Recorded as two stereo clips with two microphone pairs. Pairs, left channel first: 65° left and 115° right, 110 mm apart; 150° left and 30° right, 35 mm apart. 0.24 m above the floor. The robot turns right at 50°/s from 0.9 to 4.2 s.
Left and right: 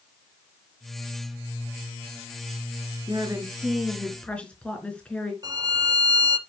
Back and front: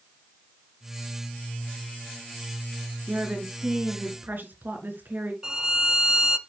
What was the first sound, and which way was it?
A woman speaking, 75° right.